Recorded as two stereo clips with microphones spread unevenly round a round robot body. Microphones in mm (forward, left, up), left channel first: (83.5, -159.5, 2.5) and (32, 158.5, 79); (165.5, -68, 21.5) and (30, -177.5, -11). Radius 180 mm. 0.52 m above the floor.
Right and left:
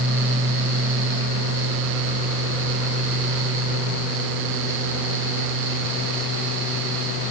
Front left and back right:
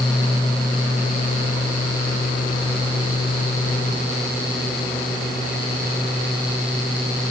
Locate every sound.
Only background noise.